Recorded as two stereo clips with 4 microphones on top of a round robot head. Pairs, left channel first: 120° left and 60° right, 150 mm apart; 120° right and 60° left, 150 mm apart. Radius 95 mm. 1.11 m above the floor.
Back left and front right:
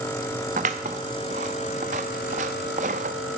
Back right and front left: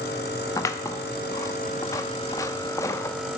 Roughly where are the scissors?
Ahead right.